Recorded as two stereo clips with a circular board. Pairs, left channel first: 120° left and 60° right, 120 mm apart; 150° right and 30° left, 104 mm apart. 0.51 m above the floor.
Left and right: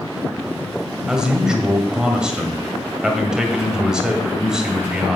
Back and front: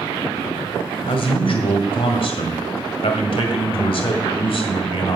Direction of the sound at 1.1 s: 145° right.